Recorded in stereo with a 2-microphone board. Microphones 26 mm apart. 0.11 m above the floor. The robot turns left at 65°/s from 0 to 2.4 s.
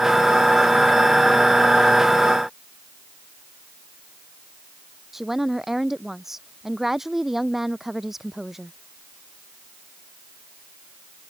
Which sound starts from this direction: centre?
A woman speaking, at 5.1 s.